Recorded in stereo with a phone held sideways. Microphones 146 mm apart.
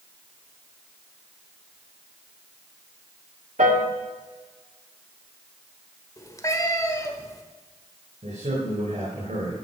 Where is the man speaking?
60° right (ahead or behind), 4.5 m.